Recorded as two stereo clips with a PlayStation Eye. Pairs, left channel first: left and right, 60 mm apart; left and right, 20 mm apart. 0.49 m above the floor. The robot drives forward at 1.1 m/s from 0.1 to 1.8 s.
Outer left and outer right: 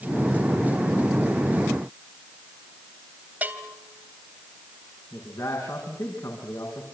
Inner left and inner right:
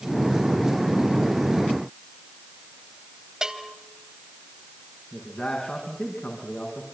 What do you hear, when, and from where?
3.4 s a bell: 30° right (ahead or behind), 2.5 m
5.1 s a man speaking: 75° left (ahead or behind), 5.5 m